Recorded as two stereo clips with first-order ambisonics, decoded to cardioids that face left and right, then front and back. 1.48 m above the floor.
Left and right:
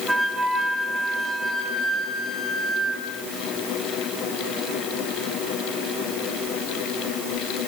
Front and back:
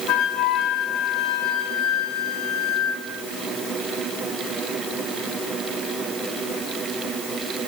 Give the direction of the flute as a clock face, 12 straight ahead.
12 o'clock.